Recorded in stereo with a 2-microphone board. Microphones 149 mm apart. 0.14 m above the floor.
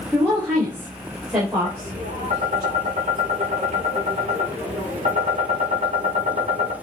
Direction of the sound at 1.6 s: 50° right (ahead or behind).